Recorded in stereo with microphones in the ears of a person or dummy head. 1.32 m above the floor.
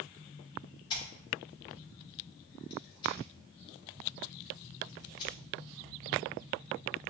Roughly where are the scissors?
Left.